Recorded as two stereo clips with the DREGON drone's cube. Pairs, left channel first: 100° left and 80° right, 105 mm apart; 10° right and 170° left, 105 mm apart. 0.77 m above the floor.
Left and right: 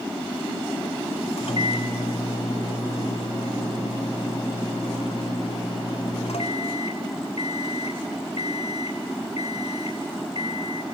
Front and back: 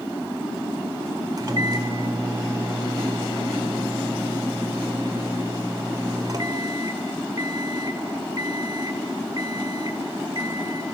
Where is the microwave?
120° left, 2 m.